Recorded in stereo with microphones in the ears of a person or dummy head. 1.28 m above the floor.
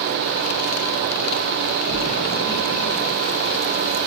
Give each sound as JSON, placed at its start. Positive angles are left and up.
{"t": 1.9, "sound": "a splash", "side_deg": 20, "distance_m": 2.5}